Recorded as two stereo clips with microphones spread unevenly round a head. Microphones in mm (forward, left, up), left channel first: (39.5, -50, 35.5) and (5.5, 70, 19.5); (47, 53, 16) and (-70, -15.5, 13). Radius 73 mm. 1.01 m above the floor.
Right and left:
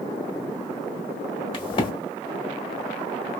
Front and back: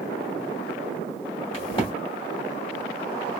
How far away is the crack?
About 1.4 m.